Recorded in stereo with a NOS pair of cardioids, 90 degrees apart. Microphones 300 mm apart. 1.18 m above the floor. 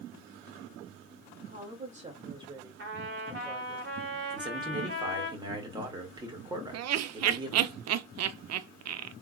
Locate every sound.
1.4 s a woman speaking: 30° right, 2.5 m; by 3.8 s 5° left, 2.5 m
2.8 s a trumpet: 35° right, 2 m
4.3 s a man speaking: 15° right, 2 m
6.7 s laughter: 55° right, 0.6 m